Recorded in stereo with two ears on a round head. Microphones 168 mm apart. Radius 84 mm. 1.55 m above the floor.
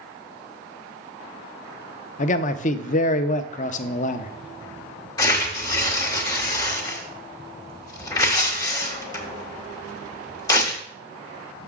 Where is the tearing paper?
20° left (ahead or behind), 1.3 m.